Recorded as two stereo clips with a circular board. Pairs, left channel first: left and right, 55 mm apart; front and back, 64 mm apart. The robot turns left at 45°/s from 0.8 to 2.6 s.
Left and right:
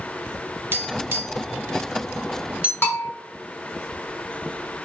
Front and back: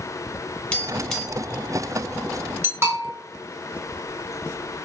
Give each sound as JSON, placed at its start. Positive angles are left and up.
{"t": 0.7, "sound": "tapping", "azimuth_deg": -70, "distance_m": 1.0}
{"t": 2.8, "sound": "a bell", "azimuth_deg": 130, "distance_m": 1.4}